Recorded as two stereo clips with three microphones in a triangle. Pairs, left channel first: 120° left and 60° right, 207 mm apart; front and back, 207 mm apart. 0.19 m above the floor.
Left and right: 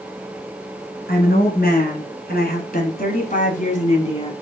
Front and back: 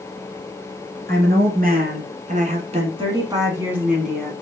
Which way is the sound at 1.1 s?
155° left.